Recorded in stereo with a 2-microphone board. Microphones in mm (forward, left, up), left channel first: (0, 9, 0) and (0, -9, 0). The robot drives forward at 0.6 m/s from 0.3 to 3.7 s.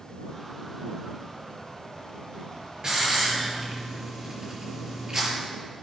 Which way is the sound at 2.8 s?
45° right (ahead or behind).